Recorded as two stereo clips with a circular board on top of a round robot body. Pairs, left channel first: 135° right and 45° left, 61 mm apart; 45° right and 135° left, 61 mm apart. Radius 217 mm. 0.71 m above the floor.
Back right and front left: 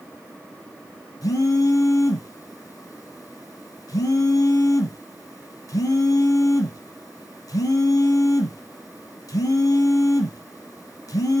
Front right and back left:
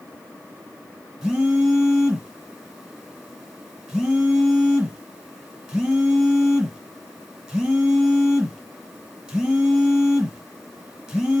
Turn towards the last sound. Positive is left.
turn(degrees=-150)